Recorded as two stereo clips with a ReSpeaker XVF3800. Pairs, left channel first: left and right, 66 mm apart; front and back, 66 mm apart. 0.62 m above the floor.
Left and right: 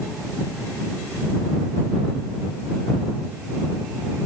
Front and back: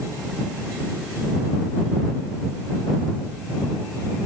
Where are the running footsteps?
No running footsteps in this recording.